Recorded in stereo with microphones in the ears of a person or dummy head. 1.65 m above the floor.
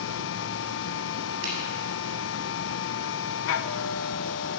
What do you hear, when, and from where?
0.0 s a machine running: 70° left (ahead or behind), 1.2 m
1.4 s a finger snap: 75° right (ahead or behind), 8.5 m